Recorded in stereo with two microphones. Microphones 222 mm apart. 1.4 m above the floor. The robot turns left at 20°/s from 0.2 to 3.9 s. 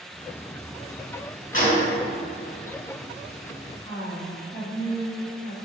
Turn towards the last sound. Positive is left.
turn(degrees=25)  # may be behind; listen again after turning